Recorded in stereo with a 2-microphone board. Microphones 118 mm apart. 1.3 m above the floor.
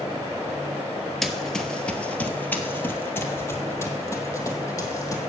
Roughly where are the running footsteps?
Centre.